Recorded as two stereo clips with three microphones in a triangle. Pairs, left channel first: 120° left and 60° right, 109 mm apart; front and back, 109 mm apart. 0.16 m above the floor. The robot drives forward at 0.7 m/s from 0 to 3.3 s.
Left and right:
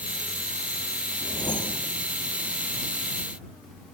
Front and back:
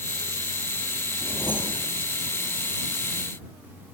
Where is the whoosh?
70° left, 3.5 m; by 1.9 s 75° left, 3.5 m.